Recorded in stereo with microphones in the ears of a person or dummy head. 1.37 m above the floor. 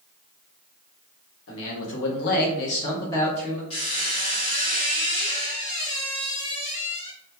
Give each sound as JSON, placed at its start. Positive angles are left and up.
{"t": 1.5, "sound": "a man speaking", "side_deg": 75, "distance_m": 1.0}
{"t": 3.7, "sound": "a squeak", "side_deg": 35, "distance_m": 0.9}